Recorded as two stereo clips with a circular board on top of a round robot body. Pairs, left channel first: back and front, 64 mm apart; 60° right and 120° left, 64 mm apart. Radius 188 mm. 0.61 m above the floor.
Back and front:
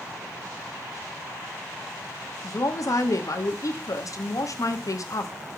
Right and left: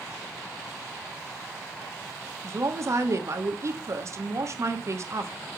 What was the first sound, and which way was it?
A woman speaking, 160° left.